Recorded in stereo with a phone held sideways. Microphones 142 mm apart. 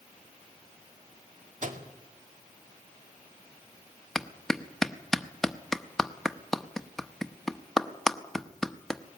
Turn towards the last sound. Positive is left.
turn(degrees=0)  # may be behind; listen again after turning